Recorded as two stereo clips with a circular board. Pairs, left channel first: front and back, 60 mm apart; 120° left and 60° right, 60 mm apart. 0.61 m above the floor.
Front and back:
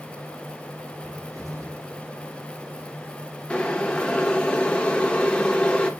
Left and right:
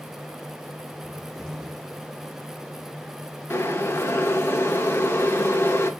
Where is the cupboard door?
160° right, 2 m.